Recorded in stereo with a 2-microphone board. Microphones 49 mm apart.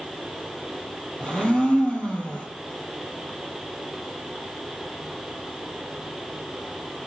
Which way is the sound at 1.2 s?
20° left (ahead or behind).